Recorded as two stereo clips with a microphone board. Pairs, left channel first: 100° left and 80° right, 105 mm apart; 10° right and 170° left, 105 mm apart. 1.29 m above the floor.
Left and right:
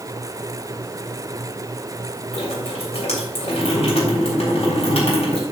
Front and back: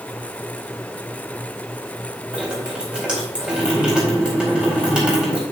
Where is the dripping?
90° left, 4.5 m.